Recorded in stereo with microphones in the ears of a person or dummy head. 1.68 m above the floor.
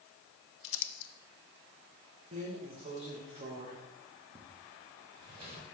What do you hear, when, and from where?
0.6 s crumpling: 70° left (ahead or behind), 0.5 m
2.3 s a drawer: 25° right (ahead or behind), 0.8 m